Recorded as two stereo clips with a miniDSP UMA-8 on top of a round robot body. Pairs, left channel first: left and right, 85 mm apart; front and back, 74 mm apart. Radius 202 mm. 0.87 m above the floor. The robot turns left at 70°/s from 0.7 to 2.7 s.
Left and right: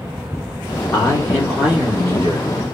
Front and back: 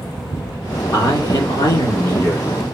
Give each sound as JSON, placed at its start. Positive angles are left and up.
{"t": 0.9, "sound": "a man speaking", "azimuth_deg": 40, "distance_m": 2.5}